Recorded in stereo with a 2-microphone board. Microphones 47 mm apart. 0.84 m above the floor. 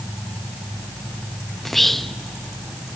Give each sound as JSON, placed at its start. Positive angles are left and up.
{"t": 1.6, "sound": "whispering", "side_deg": 0, "distance_m": 0.5}